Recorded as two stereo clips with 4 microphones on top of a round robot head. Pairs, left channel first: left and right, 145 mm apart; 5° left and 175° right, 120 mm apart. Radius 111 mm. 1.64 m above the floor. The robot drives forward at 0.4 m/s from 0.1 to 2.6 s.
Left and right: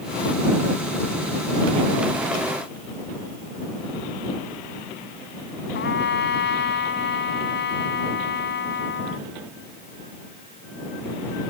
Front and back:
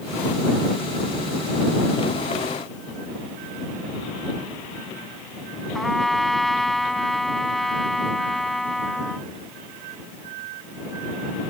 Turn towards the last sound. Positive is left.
turn(degrees=90)